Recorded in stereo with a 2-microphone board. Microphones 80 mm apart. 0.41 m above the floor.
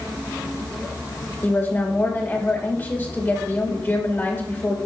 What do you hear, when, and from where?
1.4 s a woman speaking: 25° left (ahead or behind), 1.7 m